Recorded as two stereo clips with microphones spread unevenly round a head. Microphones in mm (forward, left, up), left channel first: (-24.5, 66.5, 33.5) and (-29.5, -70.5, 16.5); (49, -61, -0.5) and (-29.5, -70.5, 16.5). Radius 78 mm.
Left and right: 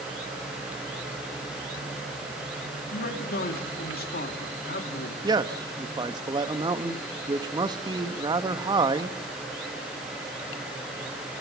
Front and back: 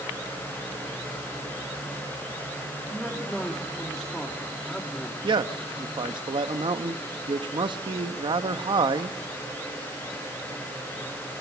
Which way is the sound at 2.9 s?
90° left.